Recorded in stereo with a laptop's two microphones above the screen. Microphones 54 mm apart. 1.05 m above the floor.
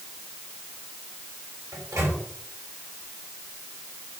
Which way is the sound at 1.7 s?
75° right (ahead or behind).